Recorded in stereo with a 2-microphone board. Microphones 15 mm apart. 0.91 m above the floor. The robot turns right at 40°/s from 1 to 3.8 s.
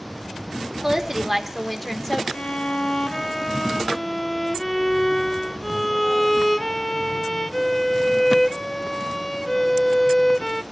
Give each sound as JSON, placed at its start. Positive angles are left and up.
{"t": 0.8, "sound": "a woman speaking", "azimuth_deg": -30, "distance_m": 1.9}
{"t": 2.3, "sound": "a violin", "azimuth_deg": 105, "distance_m": 0.6}